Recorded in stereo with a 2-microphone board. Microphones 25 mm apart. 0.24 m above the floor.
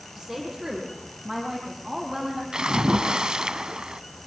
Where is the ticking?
No ticking in this recording.